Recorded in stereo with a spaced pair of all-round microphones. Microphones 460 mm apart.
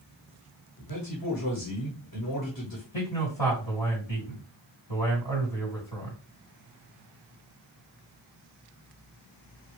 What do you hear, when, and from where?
0.8 s a man speaking: 50° left (ahead or behind), 1.1 m
2.9 s a man speaking: 80° left, 2.5 m